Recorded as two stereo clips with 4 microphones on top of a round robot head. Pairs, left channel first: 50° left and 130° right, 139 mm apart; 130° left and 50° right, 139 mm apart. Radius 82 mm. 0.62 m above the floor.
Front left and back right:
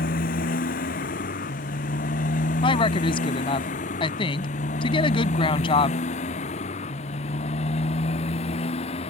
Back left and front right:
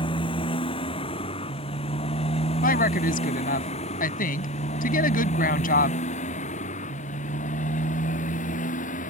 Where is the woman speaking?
105° left.